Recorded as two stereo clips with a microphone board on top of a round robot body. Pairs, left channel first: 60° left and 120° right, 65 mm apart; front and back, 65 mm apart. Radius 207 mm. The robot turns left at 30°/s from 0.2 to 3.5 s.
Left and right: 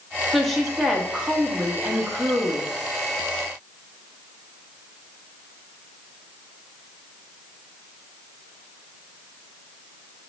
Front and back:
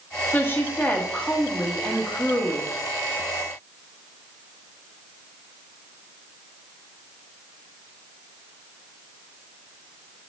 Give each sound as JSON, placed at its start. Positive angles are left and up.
{"t": 0.3, "sound": "a woman speaking", "azimuth_deg": -20, "distance_m": 1.2}